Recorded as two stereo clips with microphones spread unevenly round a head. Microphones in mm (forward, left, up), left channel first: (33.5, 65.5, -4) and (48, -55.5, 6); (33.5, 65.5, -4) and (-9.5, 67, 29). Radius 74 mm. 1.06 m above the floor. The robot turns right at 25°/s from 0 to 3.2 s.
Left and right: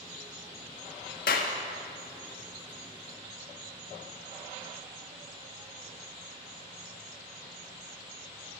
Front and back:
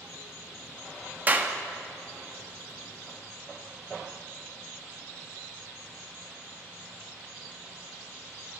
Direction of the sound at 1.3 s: 125° left.